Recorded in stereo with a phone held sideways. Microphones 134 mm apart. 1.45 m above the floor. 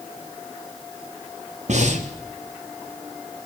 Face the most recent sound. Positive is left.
turn(degrees=-60)  # may be behind; listen again after turning